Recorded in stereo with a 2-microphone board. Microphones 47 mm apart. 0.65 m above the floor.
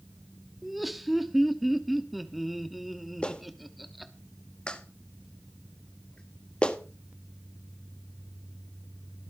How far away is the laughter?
About 1.0 m.